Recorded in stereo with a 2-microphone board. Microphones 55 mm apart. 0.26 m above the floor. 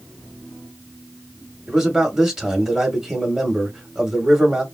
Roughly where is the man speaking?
Centre.